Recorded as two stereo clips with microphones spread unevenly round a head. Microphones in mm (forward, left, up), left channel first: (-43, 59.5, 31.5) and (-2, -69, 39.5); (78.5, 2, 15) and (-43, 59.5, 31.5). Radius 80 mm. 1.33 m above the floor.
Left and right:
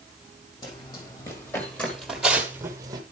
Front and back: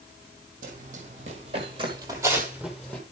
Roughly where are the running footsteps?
Behind.